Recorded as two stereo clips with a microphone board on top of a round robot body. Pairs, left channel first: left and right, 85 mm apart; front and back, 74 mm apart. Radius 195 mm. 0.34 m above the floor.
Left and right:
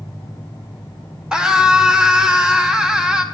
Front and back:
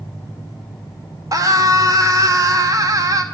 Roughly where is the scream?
Behind.